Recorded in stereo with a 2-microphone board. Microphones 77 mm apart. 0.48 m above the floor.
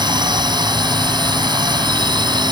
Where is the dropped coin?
I don't hear a dropped coin.